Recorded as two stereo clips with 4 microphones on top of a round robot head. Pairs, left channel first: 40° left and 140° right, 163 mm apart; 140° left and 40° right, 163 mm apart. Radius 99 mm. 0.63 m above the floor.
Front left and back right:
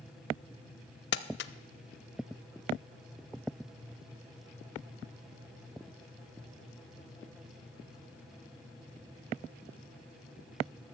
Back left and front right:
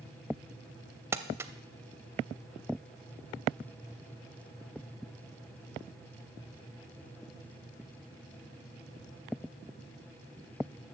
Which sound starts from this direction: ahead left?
Crumpling, at 1.1 s.